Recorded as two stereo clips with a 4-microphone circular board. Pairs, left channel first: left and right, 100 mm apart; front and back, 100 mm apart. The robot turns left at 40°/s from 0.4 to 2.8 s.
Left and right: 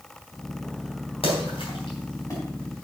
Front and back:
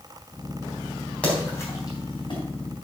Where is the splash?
75° left, 4 m; by 2.4 s 30° left, 4 m.